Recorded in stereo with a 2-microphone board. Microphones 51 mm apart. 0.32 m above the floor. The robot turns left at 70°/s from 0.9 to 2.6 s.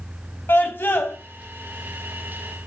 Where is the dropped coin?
No dropped coin in this recording.